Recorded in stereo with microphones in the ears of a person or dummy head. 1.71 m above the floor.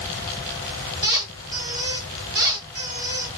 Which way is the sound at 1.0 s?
30° right (ahead or behind).